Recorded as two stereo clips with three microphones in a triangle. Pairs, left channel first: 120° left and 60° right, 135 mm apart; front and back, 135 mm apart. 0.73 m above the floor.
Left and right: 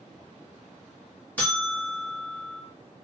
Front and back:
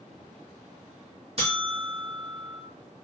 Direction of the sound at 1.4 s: 165° right.